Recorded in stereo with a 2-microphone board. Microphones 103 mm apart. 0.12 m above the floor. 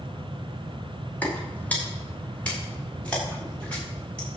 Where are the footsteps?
15° left (ahead or behind), 4 m; by 4.3 s 10° left (ahead or behind), 8.5 m.